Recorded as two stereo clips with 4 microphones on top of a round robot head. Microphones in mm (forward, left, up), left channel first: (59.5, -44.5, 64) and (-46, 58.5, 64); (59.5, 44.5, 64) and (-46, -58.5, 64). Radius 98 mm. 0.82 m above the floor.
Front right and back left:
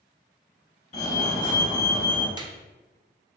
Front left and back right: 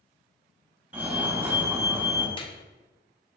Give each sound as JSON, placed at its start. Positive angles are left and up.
{"t": 0.9, "sound": "a fire alarm", "azimuth_deg": -65, "distance_m": 1.9}
{"t": 2.4, "sound": "a clap", "azimuth_deg": 85, "distance_m": 0.7}